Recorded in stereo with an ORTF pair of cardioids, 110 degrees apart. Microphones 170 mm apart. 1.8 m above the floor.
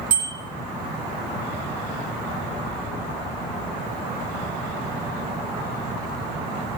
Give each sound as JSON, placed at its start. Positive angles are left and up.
{"t": 0.1, "sound": "a bicycle bell", "azimuth_deg": -50, "distance_m": 6.0}